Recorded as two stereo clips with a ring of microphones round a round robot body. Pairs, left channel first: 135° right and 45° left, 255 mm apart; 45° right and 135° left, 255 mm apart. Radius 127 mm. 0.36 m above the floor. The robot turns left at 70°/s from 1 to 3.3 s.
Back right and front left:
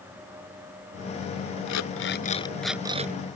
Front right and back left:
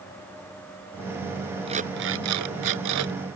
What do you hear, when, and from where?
1.7 s an alarm clock: 155° right; by 3.1 s 100° left